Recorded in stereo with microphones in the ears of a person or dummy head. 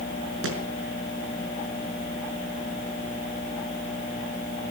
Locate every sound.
0.4 s a thud: 80° right, 4.5 m